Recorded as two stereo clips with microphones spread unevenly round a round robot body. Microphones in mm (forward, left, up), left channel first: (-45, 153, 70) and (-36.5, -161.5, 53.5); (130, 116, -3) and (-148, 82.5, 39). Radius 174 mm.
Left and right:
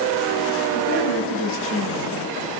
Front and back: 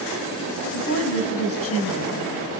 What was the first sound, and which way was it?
A woman speaking, 40° left.